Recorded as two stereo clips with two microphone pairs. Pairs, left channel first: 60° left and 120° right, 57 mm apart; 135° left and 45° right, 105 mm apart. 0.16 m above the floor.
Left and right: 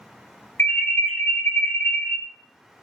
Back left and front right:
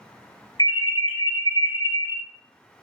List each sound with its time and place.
0.6 s an alarm: 100° left, 1.6 m